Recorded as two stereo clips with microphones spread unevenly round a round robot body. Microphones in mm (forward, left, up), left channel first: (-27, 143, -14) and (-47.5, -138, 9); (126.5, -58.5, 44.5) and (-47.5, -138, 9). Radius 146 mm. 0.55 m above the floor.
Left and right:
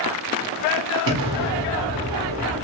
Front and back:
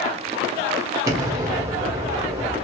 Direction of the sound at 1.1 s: 105° right.